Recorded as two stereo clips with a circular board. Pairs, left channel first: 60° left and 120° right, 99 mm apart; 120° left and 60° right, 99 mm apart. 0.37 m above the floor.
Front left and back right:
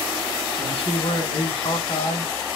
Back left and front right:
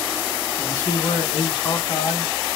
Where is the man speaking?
60° left, 2.5 m; by 2.3 s 90° left, 2.5 m.